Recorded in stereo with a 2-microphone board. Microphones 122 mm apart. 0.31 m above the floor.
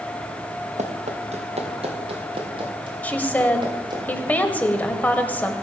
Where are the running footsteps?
70° right (ahead or behind), 2 m; by 4.0 s 35° right (ahead or behind), 5 m.